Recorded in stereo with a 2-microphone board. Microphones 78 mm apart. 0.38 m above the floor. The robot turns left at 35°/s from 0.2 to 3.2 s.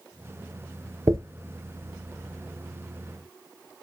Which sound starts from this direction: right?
A dropped coin, at 1.1 s.